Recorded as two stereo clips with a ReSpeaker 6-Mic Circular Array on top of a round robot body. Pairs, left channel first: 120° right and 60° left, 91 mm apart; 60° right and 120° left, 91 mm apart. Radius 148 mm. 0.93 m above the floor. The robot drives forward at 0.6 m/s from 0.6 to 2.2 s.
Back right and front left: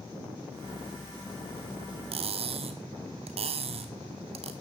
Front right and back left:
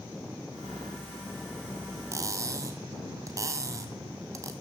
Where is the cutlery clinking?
60° left, 0.7 m.